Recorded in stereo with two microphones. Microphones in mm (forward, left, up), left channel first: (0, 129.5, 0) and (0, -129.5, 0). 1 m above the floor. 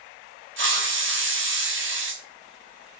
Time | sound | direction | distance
0.6 | a hiss | 50° right (ahead or behind) | 0.6 m